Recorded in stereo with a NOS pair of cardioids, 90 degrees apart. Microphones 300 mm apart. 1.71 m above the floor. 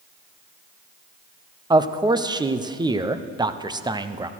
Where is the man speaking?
15° right, 0.9 m.